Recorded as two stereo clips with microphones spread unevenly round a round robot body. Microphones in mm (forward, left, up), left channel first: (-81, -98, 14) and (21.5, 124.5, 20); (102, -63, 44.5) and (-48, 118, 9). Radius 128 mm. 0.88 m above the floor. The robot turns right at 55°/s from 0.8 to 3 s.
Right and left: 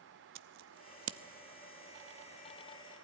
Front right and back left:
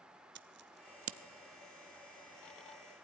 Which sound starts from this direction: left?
Scissors, at 0.3 s.